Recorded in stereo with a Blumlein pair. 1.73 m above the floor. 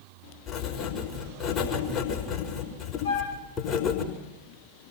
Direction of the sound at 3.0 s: 70° left.